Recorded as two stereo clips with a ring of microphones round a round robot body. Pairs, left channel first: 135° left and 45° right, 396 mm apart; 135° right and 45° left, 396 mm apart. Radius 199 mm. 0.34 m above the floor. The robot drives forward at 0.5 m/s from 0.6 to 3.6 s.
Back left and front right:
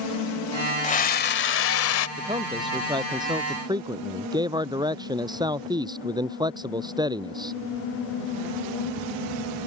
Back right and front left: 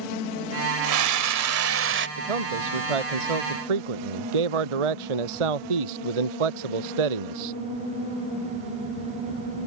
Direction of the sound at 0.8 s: 70° left.